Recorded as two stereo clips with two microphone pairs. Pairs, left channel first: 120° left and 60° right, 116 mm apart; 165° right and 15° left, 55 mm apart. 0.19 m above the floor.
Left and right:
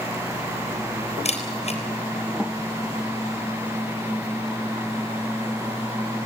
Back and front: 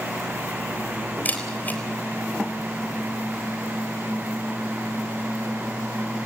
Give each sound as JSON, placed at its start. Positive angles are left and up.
{"t": 1.2, "sound": "a camera shutter", "azimuth_deg": 140, "distance_m": 3.5}